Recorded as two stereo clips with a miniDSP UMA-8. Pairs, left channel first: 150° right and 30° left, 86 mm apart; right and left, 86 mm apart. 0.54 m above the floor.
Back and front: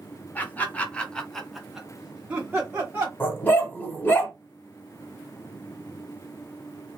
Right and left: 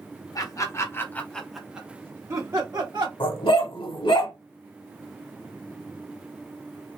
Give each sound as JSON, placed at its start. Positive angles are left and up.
{"t": 0.3, "sound": "laughter", "azimuth_deg": -90, "distance_m": 0.9}
{"t": 3.2, "sound": "a dog barking", "azimuth_deg": -85, "distance_m": 0.9}